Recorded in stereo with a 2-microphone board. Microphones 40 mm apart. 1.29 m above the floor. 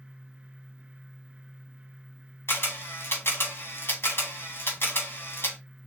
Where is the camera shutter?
80° left, 1.8 m.